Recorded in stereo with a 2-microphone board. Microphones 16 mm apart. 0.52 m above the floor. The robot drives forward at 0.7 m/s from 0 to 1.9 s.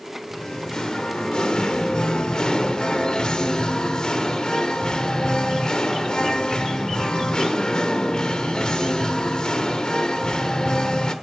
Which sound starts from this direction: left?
Singing, at 0.3 s.